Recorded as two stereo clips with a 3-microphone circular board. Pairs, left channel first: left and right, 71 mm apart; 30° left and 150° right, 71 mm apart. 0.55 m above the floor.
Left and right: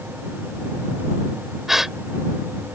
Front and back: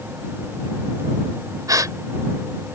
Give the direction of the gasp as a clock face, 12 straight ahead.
6 o'clock.